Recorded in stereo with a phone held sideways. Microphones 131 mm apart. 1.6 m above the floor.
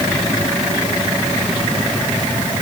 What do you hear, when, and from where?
Only background noise.